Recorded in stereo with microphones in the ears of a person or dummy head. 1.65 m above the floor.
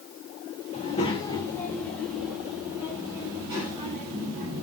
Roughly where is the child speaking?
Left.